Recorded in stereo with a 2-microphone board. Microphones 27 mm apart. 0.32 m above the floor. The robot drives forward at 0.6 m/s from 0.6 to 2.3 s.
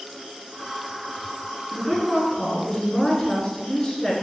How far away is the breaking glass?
I don't hear breaking glass.